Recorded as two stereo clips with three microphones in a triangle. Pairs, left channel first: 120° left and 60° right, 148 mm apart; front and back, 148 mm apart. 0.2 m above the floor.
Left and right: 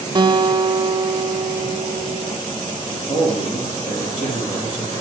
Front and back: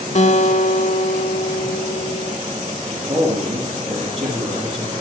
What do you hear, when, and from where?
0.1 s a guitar: 10° right, 0.5 m
2.9 s a man speaking: 150° left, 6 m